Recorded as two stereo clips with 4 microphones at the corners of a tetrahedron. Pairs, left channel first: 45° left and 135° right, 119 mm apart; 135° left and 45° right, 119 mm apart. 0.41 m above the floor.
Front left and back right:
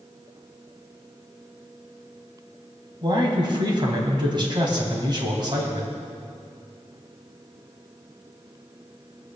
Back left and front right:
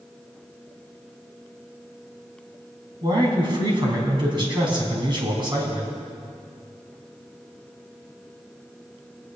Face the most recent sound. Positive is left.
turn(degrees=-90)